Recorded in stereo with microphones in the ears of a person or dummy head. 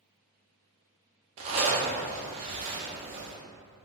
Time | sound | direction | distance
1.4 | a zipper | 40° right (ahead or behind) | 0.5 m